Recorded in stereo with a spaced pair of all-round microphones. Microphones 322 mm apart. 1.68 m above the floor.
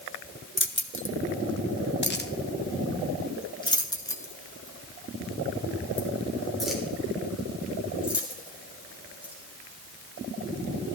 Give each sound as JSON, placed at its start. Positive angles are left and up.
{"t": 0.6, "sound": "keys jangling", "side_deg": 35, "distance_m": 1.3}